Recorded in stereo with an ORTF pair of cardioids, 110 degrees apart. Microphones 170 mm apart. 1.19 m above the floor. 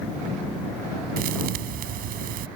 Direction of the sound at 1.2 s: 70° right.